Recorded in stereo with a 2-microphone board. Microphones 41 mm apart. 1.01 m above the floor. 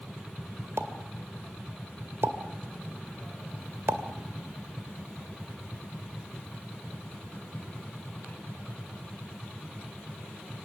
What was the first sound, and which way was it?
A pop, 65° right (ahead or behind).